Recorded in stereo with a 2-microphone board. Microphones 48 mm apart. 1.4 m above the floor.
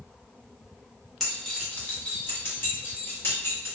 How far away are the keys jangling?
About 1.0 m.